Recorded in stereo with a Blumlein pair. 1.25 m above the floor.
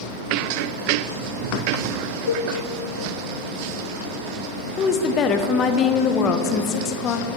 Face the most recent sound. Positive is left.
turn(degrees=30)